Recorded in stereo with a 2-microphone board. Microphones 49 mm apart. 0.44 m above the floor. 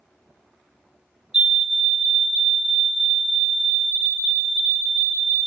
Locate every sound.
1.3 s a fire alarm: 20° right (ahead or behind), 1.8 m